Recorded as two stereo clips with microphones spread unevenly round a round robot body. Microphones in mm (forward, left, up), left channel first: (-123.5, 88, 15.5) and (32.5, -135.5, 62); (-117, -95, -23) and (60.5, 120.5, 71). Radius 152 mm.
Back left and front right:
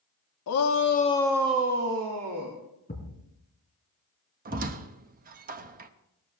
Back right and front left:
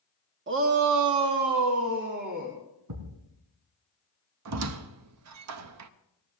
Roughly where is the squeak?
Ahead.